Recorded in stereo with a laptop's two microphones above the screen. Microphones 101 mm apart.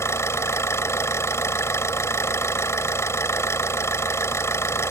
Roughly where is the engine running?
Left.